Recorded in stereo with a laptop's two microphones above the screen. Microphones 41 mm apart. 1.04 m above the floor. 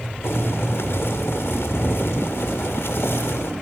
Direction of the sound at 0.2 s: 70° left (ahead or behind).